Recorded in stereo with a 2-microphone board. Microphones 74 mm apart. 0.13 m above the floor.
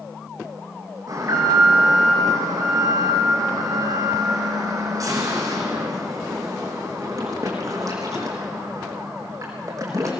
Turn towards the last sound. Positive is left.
turn(degrees=-55)  # may be behind; listen again after turning